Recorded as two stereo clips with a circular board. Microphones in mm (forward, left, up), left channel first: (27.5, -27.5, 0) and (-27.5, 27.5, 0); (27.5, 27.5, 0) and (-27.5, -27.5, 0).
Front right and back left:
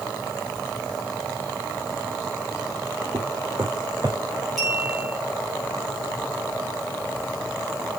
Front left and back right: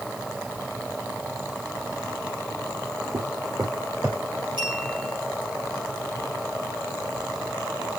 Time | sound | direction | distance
3.1 | footsteps | 165° right | 3.5 m
4.6 | a clink | 135° right | 6 m